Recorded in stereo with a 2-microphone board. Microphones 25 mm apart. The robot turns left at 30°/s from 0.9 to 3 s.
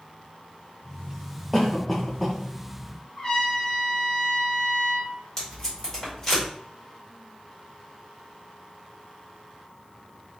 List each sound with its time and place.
1.5 s a cough: 15° left (ahead or behind), 0.9 m; by 2.4 s centre (ahead or behind), 0.9 m
3.2 s a trumpet: 30° left (ahead or behind), 1.3 m
5.4 s tape being pulled: 25° left (ahead or behind), 2 m